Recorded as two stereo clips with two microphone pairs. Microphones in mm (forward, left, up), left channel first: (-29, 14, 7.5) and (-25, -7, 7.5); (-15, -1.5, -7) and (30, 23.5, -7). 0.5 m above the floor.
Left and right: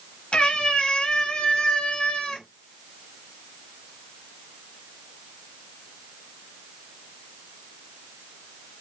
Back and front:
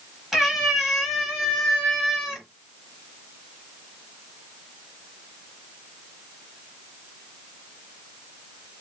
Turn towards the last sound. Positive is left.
turn(degrees=125)